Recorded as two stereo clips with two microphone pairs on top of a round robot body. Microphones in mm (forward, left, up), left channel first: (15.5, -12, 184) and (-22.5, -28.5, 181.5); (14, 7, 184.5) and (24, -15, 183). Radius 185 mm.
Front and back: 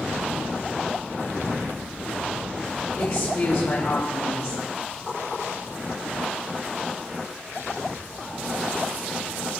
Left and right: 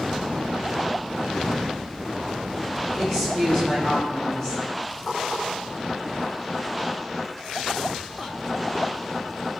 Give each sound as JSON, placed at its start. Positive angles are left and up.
{"t": 3.0, "sound": "a woman speaking", "azimuth_deg": 45, "distance_m": 4.5}